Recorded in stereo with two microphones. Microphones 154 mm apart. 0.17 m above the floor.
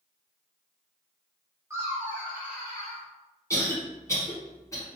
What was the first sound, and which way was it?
Laughter, 20° right (ahead or behind).